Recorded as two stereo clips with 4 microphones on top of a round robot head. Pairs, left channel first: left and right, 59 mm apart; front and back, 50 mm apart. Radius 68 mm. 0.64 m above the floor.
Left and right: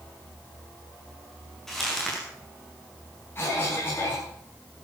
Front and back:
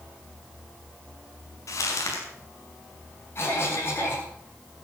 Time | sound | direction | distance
1.7 | crumpling | 5° left | 6 m
3.4 | a cough | 35° left | 9.5 m